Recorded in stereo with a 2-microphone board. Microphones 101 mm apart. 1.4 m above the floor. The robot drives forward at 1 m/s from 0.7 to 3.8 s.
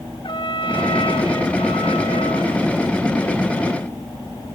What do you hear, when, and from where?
0.2 s a trumpet: 65° left (ahead or behind), 2.5 m; by 2.7 s 70° left (ahead or behind), 2.5 m